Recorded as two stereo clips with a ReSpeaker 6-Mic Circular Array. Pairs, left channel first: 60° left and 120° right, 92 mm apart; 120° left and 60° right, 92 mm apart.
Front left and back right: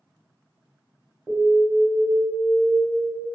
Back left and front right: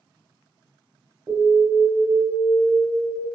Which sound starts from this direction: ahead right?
An alarm, at 1.3 s.